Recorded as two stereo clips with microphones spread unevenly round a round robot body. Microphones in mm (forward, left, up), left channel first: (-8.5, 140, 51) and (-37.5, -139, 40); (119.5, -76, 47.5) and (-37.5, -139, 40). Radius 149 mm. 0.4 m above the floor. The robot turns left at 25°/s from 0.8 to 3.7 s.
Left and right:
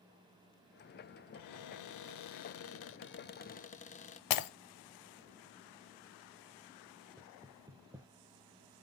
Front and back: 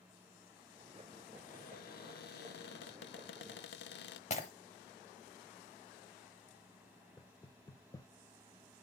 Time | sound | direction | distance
1.3 | a cupboard door | 75° left | 0.6 m
4.3 | breaking glass | 80° left | 0.9 m
7.2 | knocking | 30° right | 0.9 m